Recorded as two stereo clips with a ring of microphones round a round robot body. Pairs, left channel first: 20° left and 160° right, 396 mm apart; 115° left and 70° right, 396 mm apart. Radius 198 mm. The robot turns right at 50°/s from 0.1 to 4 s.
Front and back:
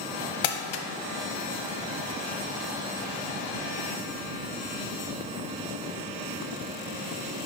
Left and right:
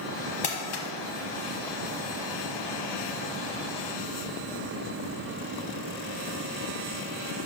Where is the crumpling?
40° left, 0.9 m; by 0.8 s 60° left, 0.9 m.